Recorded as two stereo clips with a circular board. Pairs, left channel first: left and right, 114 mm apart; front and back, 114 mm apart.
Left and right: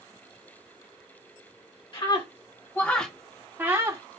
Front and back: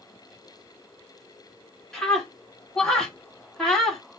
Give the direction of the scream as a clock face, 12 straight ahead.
9 o'clock.